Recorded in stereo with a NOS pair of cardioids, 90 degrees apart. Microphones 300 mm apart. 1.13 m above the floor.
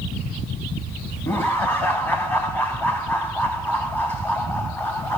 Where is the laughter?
5° left, 2.5 m.